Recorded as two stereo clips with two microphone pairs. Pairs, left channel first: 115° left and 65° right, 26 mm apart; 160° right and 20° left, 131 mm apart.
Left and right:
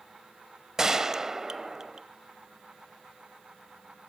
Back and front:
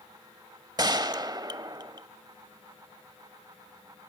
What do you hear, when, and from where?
0.8 s a gunshot: 10° right, 0.8 m